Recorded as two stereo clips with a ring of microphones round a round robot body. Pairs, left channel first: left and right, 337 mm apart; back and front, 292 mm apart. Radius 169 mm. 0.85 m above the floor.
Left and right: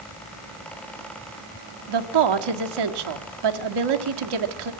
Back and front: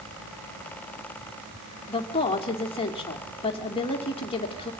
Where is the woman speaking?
105° right, 1.9 m.